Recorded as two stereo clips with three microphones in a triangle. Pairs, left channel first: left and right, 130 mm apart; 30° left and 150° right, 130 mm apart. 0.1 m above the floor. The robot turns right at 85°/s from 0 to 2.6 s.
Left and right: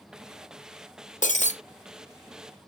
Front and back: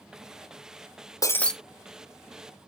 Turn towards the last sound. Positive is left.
turn(degrees=-150)